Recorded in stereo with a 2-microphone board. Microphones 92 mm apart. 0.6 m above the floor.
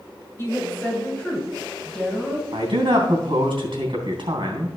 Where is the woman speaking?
30° left (ahead or behind), 4 m; by 2.4 s 5° right (ahead or behind), 4.5 m.